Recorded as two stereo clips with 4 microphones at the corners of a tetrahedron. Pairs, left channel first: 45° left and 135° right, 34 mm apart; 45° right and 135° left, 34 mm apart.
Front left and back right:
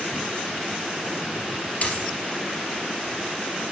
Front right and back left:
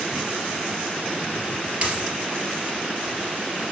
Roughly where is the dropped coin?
Left.